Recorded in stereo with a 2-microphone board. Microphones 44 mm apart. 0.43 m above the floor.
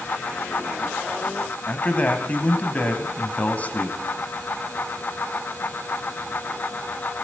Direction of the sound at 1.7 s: 35° left (ahead or behind).